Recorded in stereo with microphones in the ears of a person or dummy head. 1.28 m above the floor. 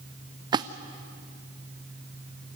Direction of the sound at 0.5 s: 20° right (ahead or behind).